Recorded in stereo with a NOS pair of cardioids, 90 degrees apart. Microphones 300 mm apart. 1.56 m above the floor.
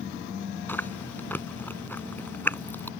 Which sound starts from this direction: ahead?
Chewing, at 0.7 s.